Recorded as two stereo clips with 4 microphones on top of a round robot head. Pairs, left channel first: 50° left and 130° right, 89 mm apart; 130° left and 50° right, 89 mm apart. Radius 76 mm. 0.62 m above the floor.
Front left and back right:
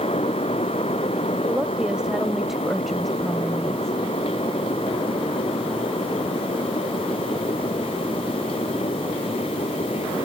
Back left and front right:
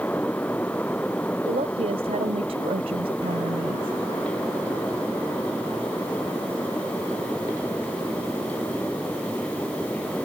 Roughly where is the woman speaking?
Ahead right.